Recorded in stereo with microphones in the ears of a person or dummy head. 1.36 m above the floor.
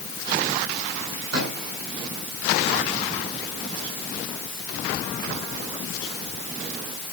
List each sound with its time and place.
1.3 s a microwave: 60° right (ahead or behind), 8.5 m